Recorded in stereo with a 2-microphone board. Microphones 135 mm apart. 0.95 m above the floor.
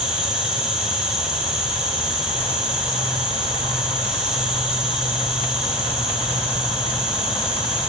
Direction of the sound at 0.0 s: 10° right (ahead or behind).